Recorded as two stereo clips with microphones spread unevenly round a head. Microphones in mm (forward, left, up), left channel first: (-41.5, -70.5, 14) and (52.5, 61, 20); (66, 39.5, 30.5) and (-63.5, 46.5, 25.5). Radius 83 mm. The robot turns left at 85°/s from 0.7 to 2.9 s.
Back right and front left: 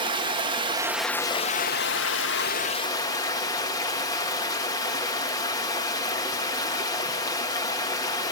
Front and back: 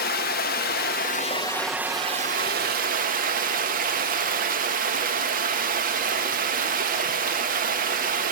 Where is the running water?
10° right, 1.4 m; by 8.3 s 165° left, 1.4 m.